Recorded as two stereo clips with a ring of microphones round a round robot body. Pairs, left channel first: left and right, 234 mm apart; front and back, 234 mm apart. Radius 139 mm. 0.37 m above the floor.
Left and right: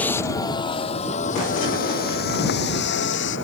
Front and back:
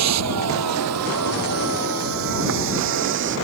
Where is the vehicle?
175° left; by 3.5 s 135° left.